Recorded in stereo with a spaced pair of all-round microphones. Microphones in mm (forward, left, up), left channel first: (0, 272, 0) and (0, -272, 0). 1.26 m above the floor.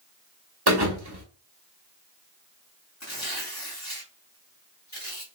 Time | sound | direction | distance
0.7 | a thud | 45° right (ahead or behind) | 1.1 m
3.0 | tearing paper | 30° left (ahead or behind) | 1.3 m